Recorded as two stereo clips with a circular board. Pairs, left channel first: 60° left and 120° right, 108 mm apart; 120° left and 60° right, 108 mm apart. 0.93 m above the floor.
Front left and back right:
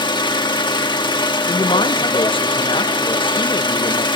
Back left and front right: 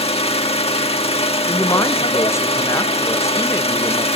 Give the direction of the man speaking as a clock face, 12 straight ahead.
10 o'clock.